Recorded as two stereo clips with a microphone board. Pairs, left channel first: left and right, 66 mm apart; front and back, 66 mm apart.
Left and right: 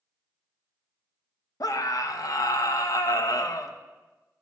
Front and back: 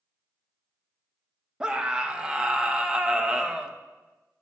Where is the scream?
105° left, 0.6 m.